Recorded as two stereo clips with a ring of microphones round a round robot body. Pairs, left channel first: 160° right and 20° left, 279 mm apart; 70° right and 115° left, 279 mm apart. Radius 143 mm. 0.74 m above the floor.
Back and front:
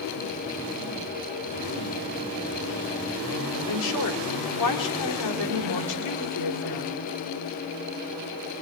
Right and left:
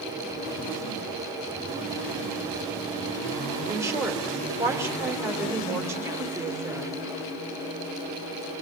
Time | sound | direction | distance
3.7 | a woman speaking | 165° right | 3.5 m